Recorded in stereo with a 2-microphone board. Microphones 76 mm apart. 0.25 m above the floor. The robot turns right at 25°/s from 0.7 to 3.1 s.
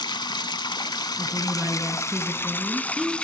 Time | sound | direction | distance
0.0 | running water | 105° left | 0.8 m
1.2 | a woman speaking | 50° right | 4 m